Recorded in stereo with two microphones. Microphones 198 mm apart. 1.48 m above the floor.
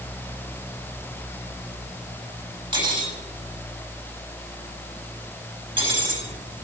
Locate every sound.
2.7 s cutlery clinking: 25° right (ahead or behind), 4 m